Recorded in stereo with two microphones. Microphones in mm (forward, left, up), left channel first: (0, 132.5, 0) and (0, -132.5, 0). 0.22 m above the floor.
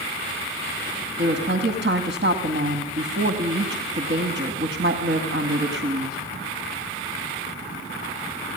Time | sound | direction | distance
1.2 | a woman speaking | 45° right (ahead or behind) | 2 m